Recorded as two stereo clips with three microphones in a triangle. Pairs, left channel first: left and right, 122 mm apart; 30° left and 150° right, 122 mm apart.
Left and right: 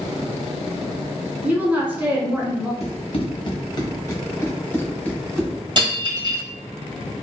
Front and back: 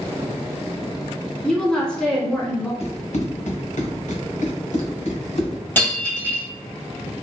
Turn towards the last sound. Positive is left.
turn(degrees=-45)